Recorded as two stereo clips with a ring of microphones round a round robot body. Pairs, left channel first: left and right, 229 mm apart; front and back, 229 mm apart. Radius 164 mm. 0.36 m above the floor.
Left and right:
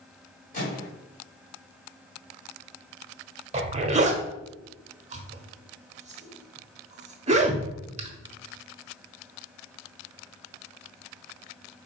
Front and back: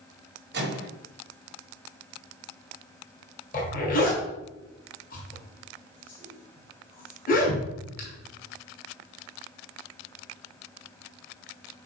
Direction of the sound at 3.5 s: 40° right.